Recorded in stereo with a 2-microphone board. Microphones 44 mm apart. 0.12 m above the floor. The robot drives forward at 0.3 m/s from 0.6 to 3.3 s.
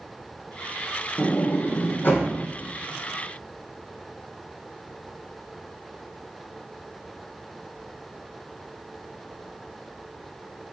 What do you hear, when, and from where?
1.2 s a sliding door: 55° left (ahead or behind), 2 m; by 2.3 s 50° left (ahead or behind), 2.5 m